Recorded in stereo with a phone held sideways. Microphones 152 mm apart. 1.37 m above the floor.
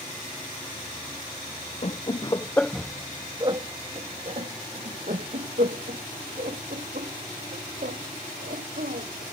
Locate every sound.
1.8 s laughter: 45° left (ahead or behind); by 9.2 s 75° right (ahead or behind)